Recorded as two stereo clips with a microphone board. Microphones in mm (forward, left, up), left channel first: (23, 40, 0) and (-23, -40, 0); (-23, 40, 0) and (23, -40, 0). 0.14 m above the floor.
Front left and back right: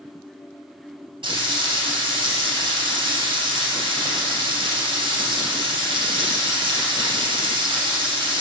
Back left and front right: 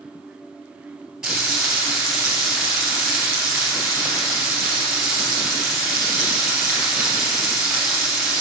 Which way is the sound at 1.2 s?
145° right.